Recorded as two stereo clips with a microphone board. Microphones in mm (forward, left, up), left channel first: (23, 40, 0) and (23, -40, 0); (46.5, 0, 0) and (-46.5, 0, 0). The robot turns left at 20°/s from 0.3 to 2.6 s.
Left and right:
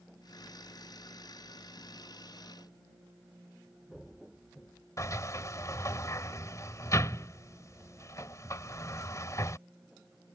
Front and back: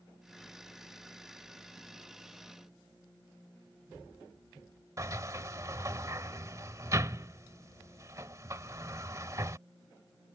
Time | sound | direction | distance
5.0 | a sliding door | 130° left | ?